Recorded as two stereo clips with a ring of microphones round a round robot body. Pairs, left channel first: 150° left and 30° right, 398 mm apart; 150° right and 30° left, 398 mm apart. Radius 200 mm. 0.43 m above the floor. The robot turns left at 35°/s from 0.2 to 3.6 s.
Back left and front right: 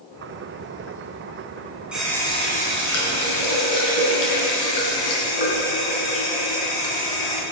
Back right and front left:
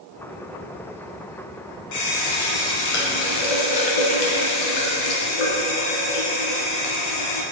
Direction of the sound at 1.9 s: 115° right.